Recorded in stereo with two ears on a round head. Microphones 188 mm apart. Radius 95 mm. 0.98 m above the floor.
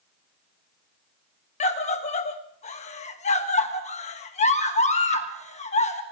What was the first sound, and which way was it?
A scream, 35° left (ahead or behind).